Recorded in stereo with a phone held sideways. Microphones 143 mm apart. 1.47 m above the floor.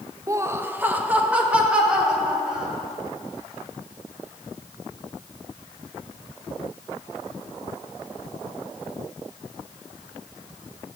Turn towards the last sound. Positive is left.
turn(degrees=-5)  # may be behind; listen again after turning